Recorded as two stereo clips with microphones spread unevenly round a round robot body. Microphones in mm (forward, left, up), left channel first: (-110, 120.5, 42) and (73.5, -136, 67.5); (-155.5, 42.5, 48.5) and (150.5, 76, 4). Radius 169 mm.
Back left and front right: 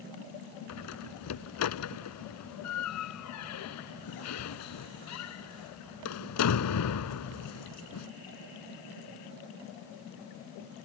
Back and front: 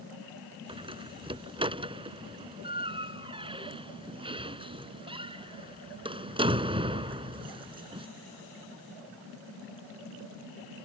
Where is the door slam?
80° left.